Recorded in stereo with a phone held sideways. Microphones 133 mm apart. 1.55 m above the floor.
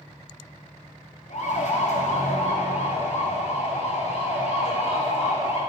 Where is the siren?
60° left (ahead or behind), 4.5 m; by 5.6 s 50° left (ahead or behind), 7 m.